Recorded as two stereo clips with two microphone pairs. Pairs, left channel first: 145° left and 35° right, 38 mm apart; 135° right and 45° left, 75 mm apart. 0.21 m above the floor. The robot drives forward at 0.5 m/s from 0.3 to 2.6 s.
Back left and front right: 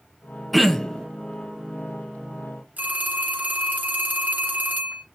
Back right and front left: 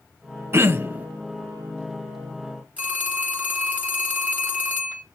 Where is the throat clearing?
50° left, 0.7 m; by 1.1 s 85° left, 0.6 m.